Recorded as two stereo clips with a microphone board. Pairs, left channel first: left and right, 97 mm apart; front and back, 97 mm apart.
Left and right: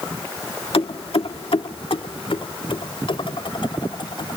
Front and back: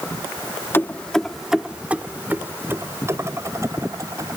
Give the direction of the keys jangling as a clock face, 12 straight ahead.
10 o'clock.